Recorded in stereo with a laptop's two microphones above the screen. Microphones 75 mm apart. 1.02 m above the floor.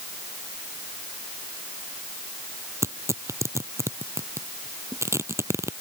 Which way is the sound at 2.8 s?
40° right (ahead or behind).